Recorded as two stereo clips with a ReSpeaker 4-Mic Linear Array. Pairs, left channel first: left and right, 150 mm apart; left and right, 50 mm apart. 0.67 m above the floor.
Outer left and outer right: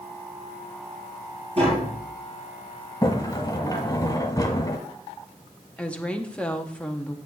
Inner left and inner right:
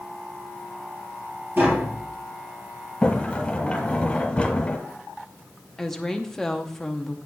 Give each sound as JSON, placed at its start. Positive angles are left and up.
{"t": 1.6, "sound": "tapping", "side_deg": -45, "distance_m": 3.0}
{"t": 3.0, "sound": "a sliding door", "side_deg": 25, "distance_m": 1.2}
{"t": 5.8, "sound": "a woman speaking", "side_deg": 5, "distance_m": 0.8}